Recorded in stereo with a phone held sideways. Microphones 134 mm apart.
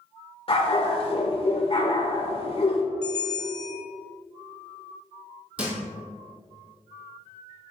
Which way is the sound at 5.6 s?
10° right (ahead or behind).